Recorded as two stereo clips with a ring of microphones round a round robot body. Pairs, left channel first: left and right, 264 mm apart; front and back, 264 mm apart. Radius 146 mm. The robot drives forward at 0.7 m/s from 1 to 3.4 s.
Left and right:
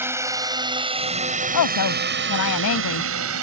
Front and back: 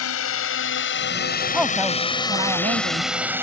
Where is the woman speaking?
90° left; by 3.4 s 125° left.